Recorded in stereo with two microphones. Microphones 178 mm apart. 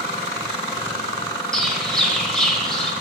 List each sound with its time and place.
1.5 s a bird: centre (ahead or behind), 0.7 m